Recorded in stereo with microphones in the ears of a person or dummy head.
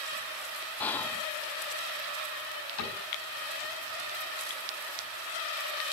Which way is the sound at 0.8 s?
15° left (ahead or behind).